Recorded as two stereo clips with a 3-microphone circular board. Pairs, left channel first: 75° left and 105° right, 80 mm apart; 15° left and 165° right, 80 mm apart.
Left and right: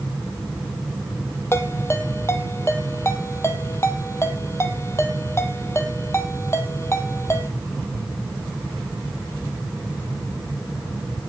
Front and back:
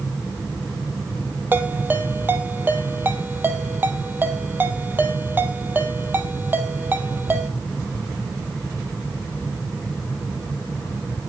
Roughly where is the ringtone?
Behind left.